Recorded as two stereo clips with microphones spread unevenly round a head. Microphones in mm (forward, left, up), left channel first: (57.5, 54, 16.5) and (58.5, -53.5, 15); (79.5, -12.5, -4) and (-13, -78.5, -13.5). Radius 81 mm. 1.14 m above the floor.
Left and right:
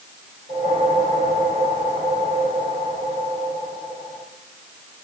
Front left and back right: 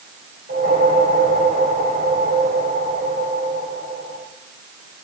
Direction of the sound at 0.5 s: 145° right.